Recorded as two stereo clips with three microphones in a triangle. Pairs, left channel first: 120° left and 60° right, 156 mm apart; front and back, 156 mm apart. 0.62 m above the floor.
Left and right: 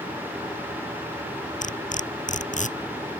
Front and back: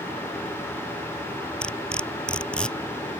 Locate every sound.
1.6 s cutlery clinking: 85° left